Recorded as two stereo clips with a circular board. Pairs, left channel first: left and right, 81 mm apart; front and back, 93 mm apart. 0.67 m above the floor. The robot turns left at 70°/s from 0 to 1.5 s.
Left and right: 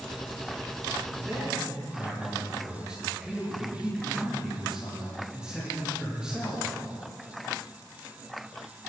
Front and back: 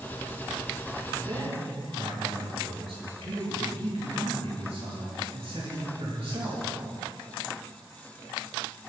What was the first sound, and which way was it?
A man speaking, 140° right.